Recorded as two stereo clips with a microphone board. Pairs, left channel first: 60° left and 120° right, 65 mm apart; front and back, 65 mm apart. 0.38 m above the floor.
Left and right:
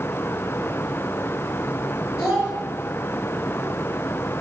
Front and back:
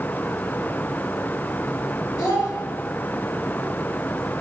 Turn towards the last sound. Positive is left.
turn(degrees=170)